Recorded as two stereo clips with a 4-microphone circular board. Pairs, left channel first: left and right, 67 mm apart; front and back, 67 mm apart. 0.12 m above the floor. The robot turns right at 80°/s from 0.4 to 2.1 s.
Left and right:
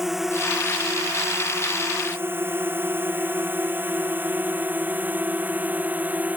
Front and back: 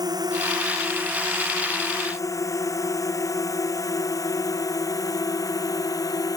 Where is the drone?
175° right; by 6.4 s 25° right.